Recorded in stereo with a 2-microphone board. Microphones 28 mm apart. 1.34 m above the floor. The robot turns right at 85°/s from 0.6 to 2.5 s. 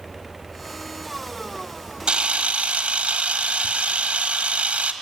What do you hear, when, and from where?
2.1 s a camera shutter: 130° right, 1.6 m; by 4.9 s 95° right, 1.6 m